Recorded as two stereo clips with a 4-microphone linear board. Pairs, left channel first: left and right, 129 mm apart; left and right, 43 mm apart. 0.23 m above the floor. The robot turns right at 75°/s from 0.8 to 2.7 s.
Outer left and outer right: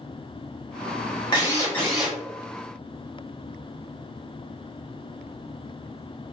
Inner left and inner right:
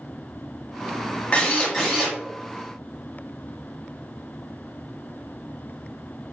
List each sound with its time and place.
1.3 s a drill: 130° left, 1.2 m; by 2.2 s 165° right, 1.2 m